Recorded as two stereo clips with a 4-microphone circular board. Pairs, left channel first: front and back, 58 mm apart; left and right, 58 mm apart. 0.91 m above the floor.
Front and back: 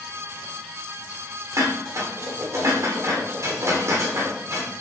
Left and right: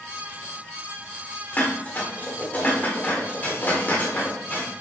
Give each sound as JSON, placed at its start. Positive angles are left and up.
{"t": 1.5, "sound": "dishes clattering", "azimuth_deg": 150, "distance_m": 1.7}